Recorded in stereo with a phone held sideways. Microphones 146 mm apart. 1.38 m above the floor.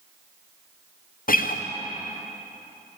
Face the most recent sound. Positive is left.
turn(degrees=75)  # may be behind; listen again after turning